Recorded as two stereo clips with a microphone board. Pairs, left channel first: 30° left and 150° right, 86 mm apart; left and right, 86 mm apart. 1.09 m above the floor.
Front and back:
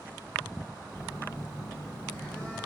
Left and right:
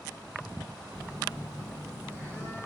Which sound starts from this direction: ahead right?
A phone buzzing, at 0.9 s.